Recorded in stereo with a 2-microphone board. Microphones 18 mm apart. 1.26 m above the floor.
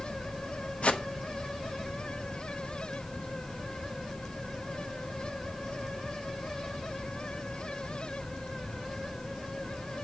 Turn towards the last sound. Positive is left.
turn(degrees=80)